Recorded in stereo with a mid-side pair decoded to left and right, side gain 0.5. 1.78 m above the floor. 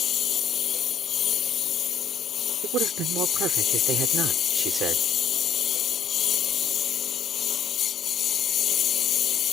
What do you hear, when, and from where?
0.0 s a lawn mower: 50° left
2.6 s a man speaking: 70° right